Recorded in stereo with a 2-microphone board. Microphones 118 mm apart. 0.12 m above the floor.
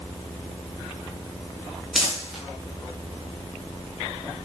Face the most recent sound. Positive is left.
turn(degrees=0)  # may be behind; listen again after turning